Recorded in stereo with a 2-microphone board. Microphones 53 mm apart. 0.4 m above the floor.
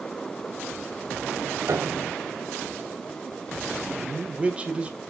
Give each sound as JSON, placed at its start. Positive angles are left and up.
{"t": 1.7, "sound": "a piano", "side_deg": -70, "distance_m": 0.8}
{"t": 4.0, "sound": "a man speaking", "side_deg": -25, "distance_m": 1.6}